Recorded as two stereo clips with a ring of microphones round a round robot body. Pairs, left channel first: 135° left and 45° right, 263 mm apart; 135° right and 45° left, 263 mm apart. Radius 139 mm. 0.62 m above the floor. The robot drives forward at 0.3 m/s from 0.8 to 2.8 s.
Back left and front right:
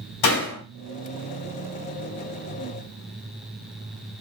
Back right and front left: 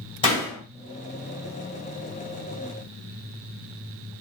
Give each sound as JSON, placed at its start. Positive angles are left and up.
{"t": 0.2, "sound": "a door slam", "azimuth_deg": 155, "distance_m": 2.5}